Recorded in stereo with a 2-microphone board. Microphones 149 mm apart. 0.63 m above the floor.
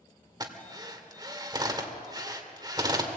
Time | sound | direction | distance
0.4 | a drill | 25° right (ahead or behind) | 2 m